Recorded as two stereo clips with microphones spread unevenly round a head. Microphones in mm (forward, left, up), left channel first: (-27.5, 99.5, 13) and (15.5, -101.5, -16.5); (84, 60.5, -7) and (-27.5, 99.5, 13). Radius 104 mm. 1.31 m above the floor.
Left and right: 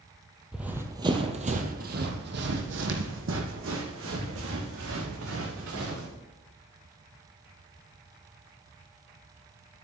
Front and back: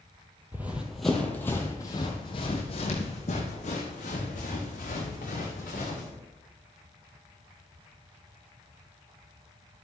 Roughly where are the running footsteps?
Behind.